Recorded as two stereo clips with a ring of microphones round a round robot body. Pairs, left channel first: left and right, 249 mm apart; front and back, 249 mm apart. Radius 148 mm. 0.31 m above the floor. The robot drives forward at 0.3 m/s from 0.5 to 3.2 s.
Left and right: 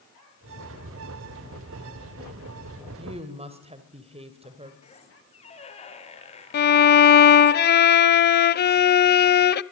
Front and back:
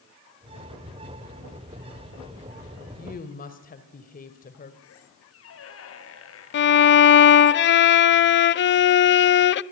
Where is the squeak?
25° left, 4 m.